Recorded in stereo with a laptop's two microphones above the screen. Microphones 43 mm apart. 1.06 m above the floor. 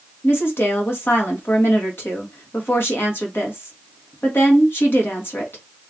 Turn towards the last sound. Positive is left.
turn(degrees=65)  # may be behind; listen again after turning